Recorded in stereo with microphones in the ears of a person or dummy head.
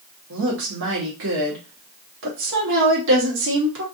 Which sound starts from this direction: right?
A woman speaking, at 0.3 s.